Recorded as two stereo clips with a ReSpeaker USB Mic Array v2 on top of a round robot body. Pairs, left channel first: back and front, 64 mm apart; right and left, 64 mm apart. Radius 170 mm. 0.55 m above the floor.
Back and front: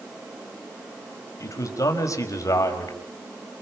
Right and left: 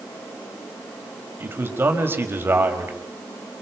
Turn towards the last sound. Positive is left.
turn(degrees=145)